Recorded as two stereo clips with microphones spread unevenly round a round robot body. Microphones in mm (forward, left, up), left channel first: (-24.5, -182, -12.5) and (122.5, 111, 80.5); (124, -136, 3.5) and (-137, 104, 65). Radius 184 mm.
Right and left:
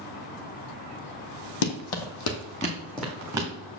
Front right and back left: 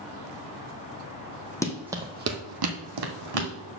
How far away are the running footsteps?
About 1.1 m.